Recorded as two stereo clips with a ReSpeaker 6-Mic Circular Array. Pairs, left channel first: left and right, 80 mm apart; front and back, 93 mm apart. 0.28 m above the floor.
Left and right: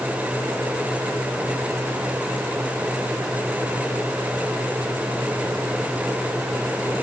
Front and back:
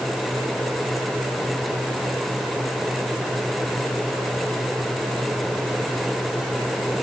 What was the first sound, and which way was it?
Only background noise.